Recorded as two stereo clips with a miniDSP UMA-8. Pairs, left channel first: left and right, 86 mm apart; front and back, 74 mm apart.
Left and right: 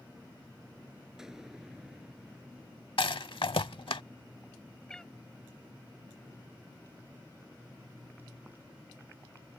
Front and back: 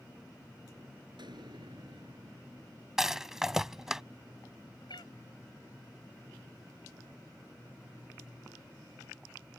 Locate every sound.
1.2 s an explosion: 175° right
3.0 s a rattle: 95° left
4.9 s a cat meowing: 10° left